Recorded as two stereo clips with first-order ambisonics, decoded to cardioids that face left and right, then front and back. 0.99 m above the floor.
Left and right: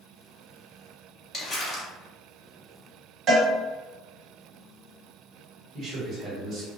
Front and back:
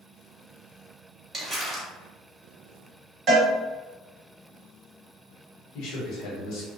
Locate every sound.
1.3 s crumpling: 110° left, 0.8 m
3.3 s a cowbell: 130° right, 1.2 m
5.7 s a man speaking: 40° right, 1.2 m